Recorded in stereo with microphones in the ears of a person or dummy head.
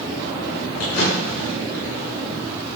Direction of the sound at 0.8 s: 65° left (ahead or behind).